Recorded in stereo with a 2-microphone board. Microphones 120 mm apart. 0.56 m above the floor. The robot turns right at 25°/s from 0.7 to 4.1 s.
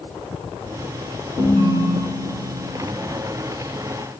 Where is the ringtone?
65° right, 5 m; by 2.9 s 30° right, 5 m.